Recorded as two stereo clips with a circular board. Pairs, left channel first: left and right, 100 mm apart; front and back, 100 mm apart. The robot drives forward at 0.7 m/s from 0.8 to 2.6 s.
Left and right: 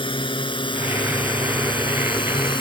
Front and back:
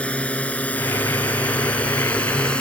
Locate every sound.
0.0 s a drone: 75° left